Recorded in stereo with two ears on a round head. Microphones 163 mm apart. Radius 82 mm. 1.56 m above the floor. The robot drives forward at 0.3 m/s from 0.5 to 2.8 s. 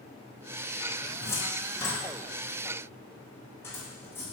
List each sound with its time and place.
1.2 s a cupboard door: 15° left (ahead or behind), 1.5 m; by 4.2 s 10° left (ahead or behind), 2.0 m